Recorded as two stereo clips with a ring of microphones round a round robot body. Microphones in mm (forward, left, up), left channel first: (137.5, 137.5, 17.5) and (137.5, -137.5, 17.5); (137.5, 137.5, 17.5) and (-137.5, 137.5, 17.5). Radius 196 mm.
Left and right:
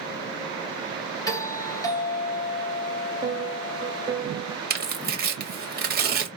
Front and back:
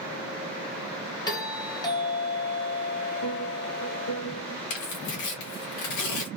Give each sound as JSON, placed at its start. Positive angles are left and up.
{"t": 1.3, "sound": "a doorbell", "azimuth_deg": 40, "distance_m": 1.4}
{"t": 3.2, "sound": "a piano", "azimuth_deg": -15, "distance_m": 1.1}
{"t": 4.7, "sound": "tearing paper", "azimuth_deg": -35, "distance_m": 1.3}